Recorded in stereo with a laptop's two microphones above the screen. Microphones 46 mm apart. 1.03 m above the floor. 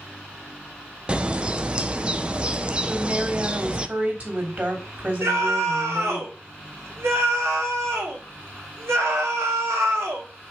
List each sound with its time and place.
1.1 s a bird: 25° right (ahead or behind), 0.5 m
2.9 s a woman speaking: 40° right (ahead or behind), 3 m
5.2 s a scream: 80° right, 2.5 m